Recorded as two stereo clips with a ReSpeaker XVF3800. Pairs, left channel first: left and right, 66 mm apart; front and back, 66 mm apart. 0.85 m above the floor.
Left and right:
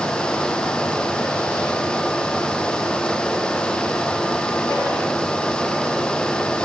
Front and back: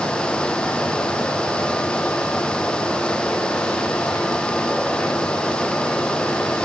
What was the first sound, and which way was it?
Only background noise.